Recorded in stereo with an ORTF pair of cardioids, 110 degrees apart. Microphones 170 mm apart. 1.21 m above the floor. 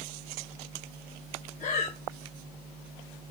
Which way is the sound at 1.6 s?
50° left.